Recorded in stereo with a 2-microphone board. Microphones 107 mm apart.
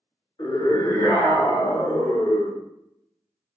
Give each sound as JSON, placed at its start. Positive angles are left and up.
{"t": 0.4, "sound": "a scream", "side_deg": 45, "distance_m": 1.2}